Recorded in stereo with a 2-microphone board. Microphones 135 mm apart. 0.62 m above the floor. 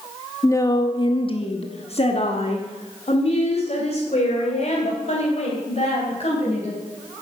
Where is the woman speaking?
20° left (ahead or behind), 0.6 m; by 6.8 s 50° left (ahead or behind), 3.5 m.